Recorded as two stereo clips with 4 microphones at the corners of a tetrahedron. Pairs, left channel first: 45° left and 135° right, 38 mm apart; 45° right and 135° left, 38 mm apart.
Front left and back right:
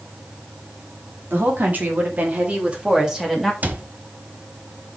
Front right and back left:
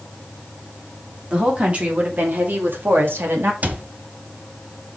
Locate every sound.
1.3 s a woman speaking: 165° right, 3 m; by 3.5 s 140° left, 2.0 m
3.6 s a cupboard door: 175° right, 1.1 m